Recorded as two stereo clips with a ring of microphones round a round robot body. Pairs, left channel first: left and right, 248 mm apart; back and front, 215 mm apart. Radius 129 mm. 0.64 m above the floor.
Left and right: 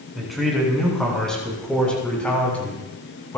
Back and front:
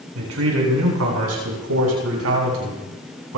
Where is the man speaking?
Straight ahead, 7.5 m; by 3.4 s 10° left, 6 m.